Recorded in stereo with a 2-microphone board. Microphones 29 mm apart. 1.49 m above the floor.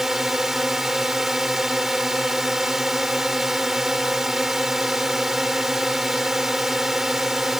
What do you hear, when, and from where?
0.0 s a drone: 15° right (ahead or behind)